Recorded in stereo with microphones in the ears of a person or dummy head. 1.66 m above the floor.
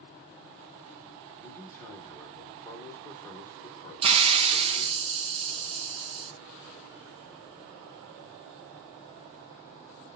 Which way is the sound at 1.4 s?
15° left (ahead or behind).